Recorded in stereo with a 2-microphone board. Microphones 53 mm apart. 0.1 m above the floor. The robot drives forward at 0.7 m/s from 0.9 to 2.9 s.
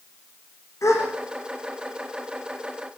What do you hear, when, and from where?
0.8 s a gasp: 70° left (ahead or behind), 5.5 m